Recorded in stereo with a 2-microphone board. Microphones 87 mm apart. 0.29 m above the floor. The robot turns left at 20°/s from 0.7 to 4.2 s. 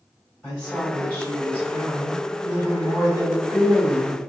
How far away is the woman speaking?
About 1.7 m.